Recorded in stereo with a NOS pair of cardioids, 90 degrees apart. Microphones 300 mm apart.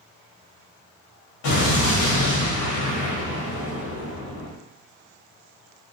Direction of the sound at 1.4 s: 70° left.